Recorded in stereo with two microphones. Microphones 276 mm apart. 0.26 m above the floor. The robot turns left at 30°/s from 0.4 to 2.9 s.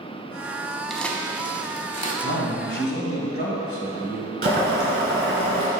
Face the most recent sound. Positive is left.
turn(degrees=-35)  # may be behind; listen again after turning